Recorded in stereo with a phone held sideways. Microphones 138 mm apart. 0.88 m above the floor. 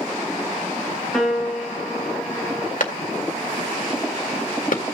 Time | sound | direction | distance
1.1 | a piano | centre (ahead or behind) | 3 m
2.8 | a clap | 70° left (ahead or behind) | 1.9 m